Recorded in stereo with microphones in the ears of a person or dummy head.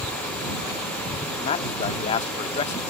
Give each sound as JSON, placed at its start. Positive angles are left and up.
{"t": 1.4, "sound": "a man speaking", "side_deg": 30}